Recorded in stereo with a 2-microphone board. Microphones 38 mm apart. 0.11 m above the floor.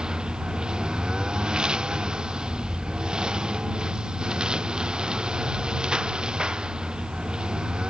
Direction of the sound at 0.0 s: 20° right (ahead or behind).